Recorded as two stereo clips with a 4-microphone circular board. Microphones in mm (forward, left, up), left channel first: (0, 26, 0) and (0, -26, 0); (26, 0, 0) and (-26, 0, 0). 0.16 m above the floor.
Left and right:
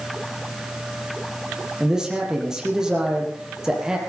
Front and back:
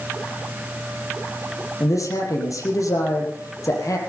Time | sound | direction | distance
1.8 | a man speaking | 10° right | 5 m